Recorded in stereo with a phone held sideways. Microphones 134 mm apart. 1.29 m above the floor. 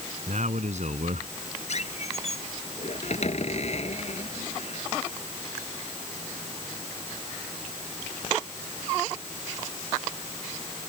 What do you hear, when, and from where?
0.3 s a man speaking: 60° right (ahead or behind)
1.7 s a squeak: 55° left (ahead or behind)